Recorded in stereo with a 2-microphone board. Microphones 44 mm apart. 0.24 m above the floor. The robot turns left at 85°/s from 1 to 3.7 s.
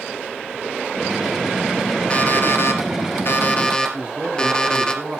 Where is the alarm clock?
155° left, 2.5 m; by 4.9 s 20° left, 2.5 m.